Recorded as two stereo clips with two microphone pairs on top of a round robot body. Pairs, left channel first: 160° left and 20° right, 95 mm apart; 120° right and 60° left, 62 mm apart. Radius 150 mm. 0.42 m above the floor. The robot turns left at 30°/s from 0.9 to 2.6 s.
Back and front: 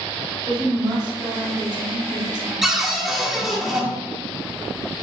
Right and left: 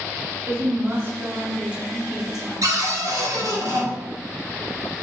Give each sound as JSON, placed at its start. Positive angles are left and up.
{"t": 0.5, "sound": "a woman speaking", "azimuth_deg": 10, "distance_m": 1.8}
{"t": 2.6, "sound": "a cupboard door", "azimuth_deg": 65, "distance_m": 1.5}